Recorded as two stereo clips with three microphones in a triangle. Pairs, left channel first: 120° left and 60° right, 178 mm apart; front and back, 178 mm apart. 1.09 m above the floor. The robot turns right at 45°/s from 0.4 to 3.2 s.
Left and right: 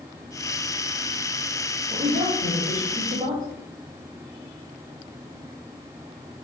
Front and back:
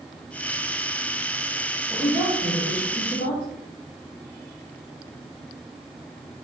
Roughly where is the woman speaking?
Right.